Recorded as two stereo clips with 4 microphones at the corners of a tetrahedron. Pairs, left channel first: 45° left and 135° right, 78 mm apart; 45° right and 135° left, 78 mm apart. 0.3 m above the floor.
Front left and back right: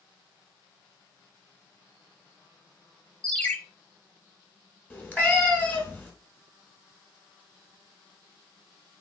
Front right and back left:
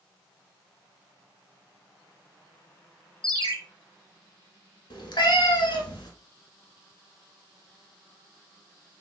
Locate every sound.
3.2 s a ringtone: 125° left, 0.5 m
4.9 s a cat meowing: 20° right, 0.9 m